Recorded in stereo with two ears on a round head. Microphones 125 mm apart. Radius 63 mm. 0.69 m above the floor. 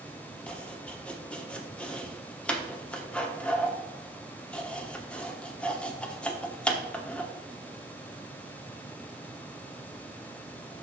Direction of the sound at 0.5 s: 10° left (ahead or behind).